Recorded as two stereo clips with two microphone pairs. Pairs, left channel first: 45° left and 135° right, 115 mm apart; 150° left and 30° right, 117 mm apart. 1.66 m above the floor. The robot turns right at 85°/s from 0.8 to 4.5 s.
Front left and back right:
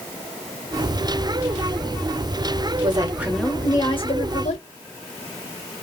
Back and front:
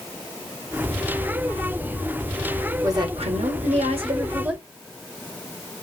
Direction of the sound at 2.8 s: 95° right.